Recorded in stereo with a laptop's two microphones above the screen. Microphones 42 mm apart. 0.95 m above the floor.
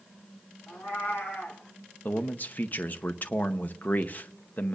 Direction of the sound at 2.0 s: 45° left (ahead or behind).